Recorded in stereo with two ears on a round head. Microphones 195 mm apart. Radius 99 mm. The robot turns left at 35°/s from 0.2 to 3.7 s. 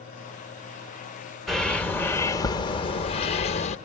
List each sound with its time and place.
1.5 s a bird: straight behind, 0.7 m; by 3.8 s 100° left, 0.7 m